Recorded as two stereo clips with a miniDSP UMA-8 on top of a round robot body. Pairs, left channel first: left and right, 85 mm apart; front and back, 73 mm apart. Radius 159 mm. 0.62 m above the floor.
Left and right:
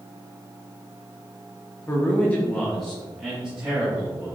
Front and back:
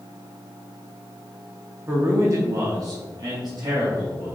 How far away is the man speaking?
About 1.0 m.